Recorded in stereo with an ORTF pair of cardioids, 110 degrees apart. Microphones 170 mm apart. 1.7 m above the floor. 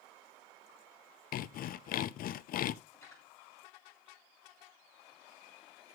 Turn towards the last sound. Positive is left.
turn(degrees=20)